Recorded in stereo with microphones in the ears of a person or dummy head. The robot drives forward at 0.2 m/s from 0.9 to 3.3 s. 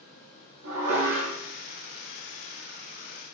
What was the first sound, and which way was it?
Dishes clattering, 65° right (ahead or behind).